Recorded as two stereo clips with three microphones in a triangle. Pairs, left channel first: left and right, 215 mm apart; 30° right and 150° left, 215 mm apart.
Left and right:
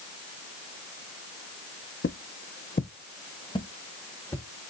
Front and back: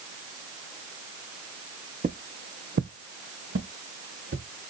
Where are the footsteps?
100° left, 0.6 m; by 4.5 s 165° left, 1.6 m.